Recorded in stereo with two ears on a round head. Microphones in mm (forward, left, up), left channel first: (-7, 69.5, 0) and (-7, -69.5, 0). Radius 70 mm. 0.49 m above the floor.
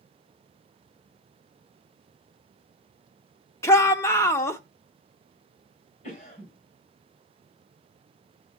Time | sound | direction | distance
3.6 | a shout | 15° left (ahead or behind) | 0.8 m
6.0 | a cough | 50° left (ahead or behind) | 3.5 m